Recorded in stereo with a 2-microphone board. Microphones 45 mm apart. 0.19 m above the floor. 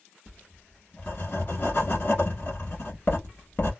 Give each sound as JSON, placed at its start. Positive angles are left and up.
{"t": 0.3, "sound": "writing", "side_deg": 50, "distance_m": 1.3}